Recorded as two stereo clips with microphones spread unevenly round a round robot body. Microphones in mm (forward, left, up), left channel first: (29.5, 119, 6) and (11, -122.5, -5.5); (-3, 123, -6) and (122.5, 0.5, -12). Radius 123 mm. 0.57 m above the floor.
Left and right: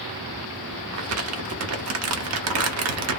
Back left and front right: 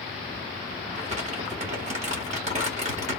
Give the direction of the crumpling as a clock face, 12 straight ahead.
3 o'clock.